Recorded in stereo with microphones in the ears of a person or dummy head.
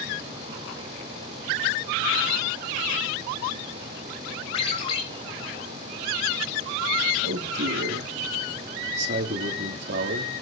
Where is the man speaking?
65° right (ahead or behind), 1.8 m.